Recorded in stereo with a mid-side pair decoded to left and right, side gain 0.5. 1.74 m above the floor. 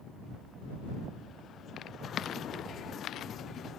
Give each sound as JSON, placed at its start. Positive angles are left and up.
{"t": 1.8, "sound": "footsteps", "azimuth_deg": 55}